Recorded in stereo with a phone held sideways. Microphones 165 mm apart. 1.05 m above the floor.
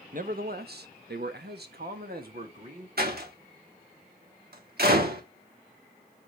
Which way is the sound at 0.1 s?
55° right (ahead or behind).